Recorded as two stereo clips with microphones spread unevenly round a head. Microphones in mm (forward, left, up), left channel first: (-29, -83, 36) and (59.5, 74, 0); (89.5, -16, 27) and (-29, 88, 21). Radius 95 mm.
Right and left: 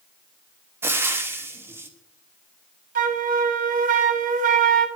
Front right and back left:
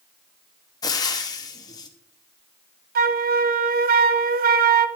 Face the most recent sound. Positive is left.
turn(degrees=110)